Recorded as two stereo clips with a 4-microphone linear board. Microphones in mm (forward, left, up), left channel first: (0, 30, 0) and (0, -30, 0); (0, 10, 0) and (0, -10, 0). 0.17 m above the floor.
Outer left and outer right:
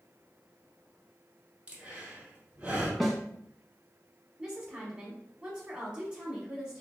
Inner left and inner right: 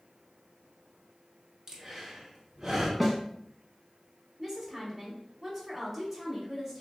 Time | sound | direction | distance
1.7 | breathing | 20° right (ahead or behind) | 1.0 m
3.0 | a snare drum | centre (ahead or behind) | 0.6 m
4.4 | a woman speaking | 15° right (ahead or behind) | 1.1 m